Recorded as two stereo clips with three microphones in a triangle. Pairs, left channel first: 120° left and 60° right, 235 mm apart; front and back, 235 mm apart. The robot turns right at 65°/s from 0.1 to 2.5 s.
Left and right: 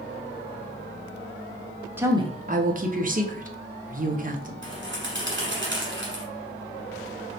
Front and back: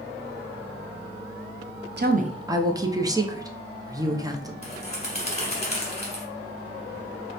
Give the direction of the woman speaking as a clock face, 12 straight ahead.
5 o'clock.